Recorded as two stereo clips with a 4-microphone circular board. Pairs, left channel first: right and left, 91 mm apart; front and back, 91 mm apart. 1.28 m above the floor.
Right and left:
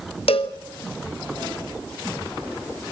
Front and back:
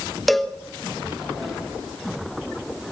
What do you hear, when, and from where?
0.3 s a cowbell: 90° right, 1.0 m